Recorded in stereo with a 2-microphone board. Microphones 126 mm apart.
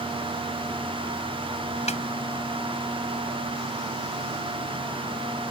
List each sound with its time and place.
1.9 s a snare drum: 65° left (ahead or behind)